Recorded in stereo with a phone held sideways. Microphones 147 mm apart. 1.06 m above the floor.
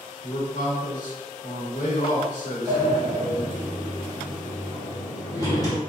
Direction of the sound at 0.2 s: 60° left (ahead or behind).